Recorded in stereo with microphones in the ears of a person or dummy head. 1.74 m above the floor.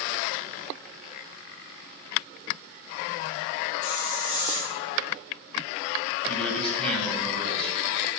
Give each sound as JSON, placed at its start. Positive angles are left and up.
{"t": 3.8, "sound": "a hiss", "side_deg": 45, "distance_m": 3.5}
{"t": 6.3, "sound": "a man speaking", "side_deg": 10, "distance_m": 2.0}